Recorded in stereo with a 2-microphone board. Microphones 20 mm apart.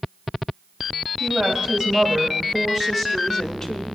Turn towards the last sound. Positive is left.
turn(degrees=20)  # may be behind; listen again after turning